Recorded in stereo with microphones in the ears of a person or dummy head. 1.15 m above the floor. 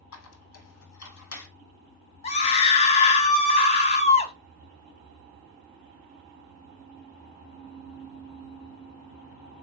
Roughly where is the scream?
Left.